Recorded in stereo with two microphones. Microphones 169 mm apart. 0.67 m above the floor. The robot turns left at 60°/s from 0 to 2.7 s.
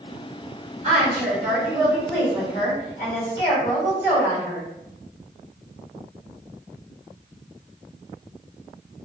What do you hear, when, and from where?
0.8 s a woman speaking: 115° right, 1.2 m; by 4.7 s 135° left, 1.2 m